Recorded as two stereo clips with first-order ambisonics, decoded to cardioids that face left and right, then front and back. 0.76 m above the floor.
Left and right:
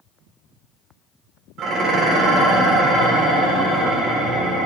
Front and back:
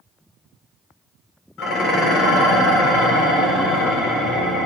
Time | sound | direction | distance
1.6 | dishes clattering | 40° right | 1.3 m